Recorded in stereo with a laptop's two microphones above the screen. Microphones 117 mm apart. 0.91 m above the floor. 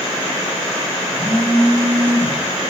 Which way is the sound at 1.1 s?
20° left (ahead or behind).